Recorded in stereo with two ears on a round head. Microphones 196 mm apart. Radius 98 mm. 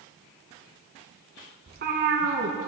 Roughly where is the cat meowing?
Right.